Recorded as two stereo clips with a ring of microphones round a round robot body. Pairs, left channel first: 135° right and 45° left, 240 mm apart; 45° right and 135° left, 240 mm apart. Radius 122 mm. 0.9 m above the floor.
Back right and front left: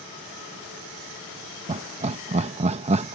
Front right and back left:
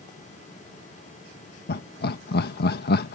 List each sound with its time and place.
1.7 s laughter: 10° right